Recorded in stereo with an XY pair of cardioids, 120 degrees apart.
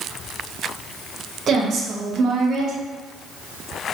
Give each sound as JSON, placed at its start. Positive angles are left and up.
{"t": 1.5, "sound": "a woman speaking", "azimuth_deg": -45, "distance_m": 1.0}